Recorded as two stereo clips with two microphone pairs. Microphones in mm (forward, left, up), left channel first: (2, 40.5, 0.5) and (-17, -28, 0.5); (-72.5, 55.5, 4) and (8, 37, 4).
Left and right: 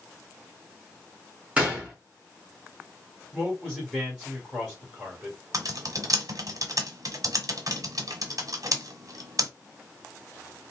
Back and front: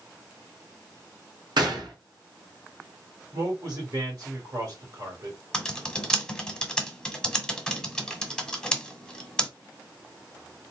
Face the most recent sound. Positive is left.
turn(degrees=-115)